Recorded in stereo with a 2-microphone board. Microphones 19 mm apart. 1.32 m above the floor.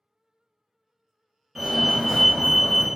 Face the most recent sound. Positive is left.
turn(degrees=-5)  # may be behind; listen again after turning